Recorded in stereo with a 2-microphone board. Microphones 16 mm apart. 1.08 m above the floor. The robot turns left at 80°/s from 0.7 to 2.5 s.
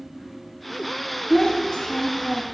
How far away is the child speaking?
About 0.6 m.